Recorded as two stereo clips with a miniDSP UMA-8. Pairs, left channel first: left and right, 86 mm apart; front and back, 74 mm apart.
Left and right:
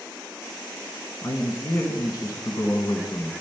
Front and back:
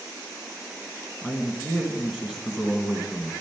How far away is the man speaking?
About 1.3 m.